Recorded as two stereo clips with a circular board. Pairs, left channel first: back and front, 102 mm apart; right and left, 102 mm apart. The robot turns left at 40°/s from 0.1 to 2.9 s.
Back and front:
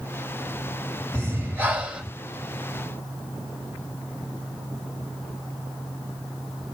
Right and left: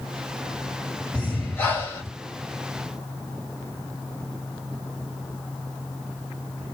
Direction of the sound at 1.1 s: 30° right.